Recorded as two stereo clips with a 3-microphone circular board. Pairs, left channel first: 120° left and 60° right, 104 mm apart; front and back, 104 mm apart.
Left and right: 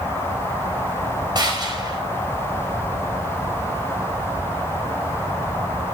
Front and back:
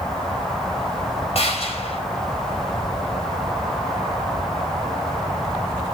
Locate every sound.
1.4 s a gunshot: 15° right, 4.5 m